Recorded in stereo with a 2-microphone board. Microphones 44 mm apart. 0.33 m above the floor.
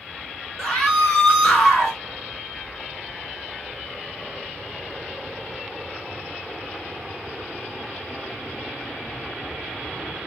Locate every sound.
0.6 s a scream: centre (ahead or behind), 1.2 m